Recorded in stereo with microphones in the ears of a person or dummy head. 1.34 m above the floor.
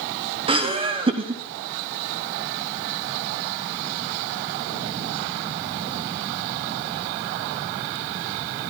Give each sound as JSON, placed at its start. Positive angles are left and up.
{"t": 0.5, "sound": "laughter", "side_deg": -25, "distance_m": 0.9}